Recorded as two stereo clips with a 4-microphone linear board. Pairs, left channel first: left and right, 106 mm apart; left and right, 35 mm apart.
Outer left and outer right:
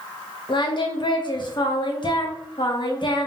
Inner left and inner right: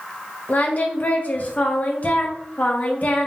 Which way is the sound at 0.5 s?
50° left (ahead or behind).